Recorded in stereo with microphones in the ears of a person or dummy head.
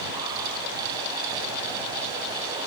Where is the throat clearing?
No throat clearing in this recording.